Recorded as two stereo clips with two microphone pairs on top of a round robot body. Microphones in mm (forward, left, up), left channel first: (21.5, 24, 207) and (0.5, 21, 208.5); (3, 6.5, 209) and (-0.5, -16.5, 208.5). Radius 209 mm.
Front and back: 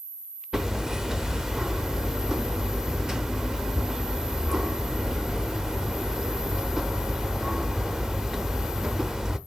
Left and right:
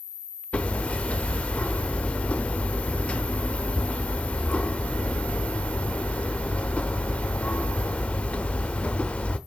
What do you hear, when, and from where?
0.5 s hammering: 120° left, 0.6 m